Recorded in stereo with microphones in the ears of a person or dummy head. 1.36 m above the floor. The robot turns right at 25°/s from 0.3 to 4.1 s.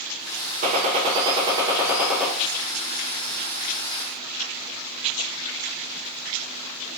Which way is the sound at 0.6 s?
45° right.